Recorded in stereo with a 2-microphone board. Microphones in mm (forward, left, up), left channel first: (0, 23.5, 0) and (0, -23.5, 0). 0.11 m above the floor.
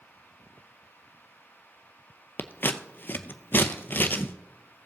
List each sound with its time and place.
2.4 s scissors: 40° left (ahead or behind), 0.7 m